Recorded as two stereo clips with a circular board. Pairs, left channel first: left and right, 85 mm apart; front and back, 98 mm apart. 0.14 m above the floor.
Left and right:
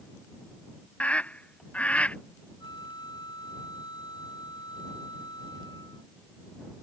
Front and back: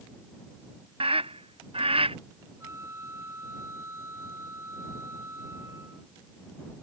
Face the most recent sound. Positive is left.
turn(degrees=120)